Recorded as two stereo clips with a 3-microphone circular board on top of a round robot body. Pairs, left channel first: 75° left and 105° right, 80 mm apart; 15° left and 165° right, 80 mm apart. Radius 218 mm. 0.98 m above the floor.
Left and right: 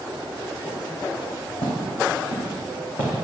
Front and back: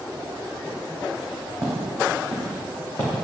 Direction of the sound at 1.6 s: 110° left.